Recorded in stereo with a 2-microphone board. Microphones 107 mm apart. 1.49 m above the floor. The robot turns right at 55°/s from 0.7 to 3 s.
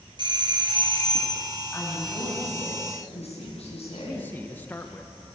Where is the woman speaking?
10° left, 9.5 m; by 4.3 s 80° left, 9.5 m.